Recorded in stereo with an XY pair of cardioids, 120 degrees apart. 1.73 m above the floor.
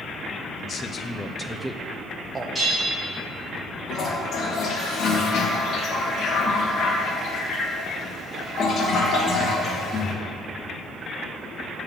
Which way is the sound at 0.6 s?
40° left.